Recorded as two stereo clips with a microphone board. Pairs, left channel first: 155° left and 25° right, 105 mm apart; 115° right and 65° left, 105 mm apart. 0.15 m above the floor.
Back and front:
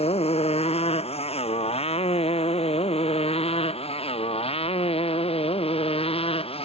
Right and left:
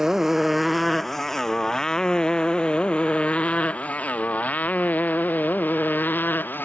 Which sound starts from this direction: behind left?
A motorcycle, at 0.0 s.